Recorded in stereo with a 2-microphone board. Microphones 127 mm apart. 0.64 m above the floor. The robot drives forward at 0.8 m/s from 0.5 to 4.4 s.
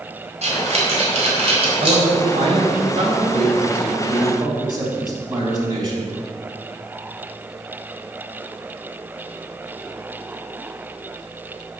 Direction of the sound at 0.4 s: 60° right (ahead or behind).